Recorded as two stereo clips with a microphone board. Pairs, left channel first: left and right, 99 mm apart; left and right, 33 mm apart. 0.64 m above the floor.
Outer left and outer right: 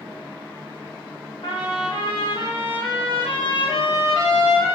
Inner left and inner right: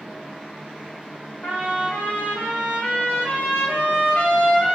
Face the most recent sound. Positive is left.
turn(degrees=60)  # may be behind; listen again after turning